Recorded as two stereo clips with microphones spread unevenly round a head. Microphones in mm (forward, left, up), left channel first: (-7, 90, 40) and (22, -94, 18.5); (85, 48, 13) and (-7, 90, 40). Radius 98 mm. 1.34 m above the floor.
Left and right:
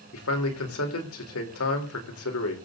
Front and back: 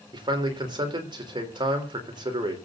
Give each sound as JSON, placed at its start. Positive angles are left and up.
{"t": 0.1, "sound": "a man speaking", "azimuth_deg": 115, "distance_m": 4.5}